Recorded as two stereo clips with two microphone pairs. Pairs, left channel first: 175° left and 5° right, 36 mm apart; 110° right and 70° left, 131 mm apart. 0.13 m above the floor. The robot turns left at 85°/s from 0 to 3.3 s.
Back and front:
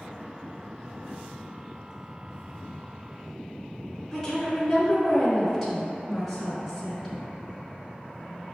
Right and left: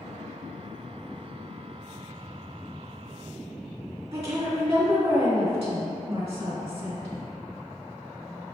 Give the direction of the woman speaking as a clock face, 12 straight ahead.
9 o'clock.